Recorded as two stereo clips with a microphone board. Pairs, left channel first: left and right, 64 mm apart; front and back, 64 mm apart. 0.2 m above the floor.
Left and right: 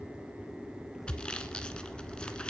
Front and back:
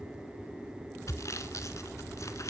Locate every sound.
1.1 s sawing: 20° left, 1.5 m